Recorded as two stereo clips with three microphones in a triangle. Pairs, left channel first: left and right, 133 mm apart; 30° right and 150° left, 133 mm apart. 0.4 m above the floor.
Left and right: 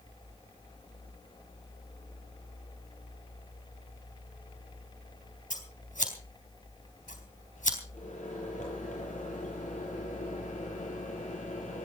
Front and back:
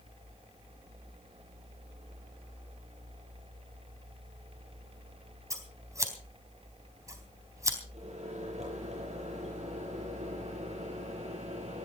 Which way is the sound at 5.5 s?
85° left.